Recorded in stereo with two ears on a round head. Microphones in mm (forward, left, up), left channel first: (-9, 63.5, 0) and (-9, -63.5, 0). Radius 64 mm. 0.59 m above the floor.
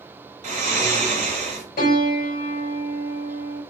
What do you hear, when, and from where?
0.4 s snoring: 60° right (ahead or behind), 1.9 m
1.8 s a piano: 55° left (ahead or behind), 3 m